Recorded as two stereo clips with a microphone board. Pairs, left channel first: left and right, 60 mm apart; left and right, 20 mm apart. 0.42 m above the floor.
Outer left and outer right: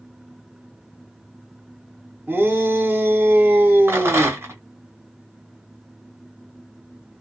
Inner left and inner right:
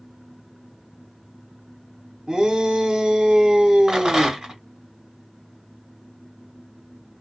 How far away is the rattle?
About 2.0 m.